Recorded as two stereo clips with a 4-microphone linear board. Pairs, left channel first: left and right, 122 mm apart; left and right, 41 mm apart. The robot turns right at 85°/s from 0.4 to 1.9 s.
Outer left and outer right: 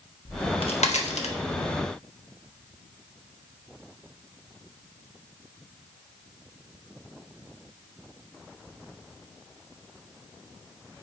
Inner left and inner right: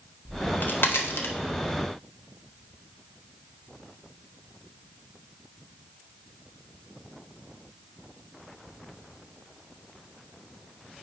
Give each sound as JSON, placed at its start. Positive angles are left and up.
{"t": 0.2, "sound": "a crack", "side_deg": 35, "distance_m": 1.1}